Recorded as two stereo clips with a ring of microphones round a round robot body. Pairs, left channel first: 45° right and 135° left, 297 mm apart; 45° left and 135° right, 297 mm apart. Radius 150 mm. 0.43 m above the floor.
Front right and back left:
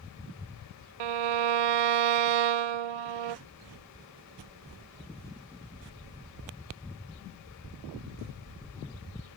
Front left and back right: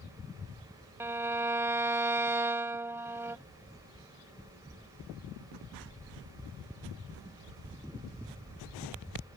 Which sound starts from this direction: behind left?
A violin, at 1.0 s.